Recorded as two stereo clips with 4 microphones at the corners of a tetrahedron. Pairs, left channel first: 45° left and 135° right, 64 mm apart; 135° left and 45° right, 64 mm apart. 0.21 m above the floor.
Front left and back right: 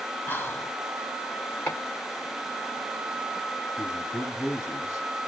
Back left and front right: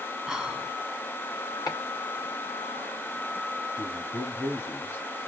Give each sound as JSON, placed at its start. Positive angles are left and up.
{"t": 0.3, "sound": "whispering", "azimuth_deg": 30, "distance_m": 1.1}
{"t": 1.7, "sound": "chopping", "azimuth_deg": 110, "distance_m": 2.5}
{"t": 3.8, "sound": "a man speaking", "azimuth_deg": 90, "distance_m": 3.0}